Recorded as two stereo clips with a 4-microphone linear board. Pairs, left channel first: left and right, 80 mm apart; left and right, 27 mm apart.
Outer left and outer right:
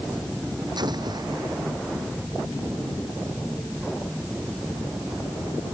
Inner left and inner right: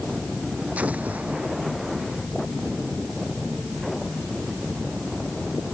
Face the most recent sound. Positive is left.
turn(degrees=-65)  # may be behind; listen again after turning